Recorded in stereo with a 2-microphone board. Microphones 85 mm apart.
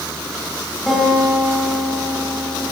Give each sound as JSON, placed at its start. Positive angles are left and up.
{"t": 0.9, "sound": "a guitar", "side_deg": 0, "distance_m": 5.5}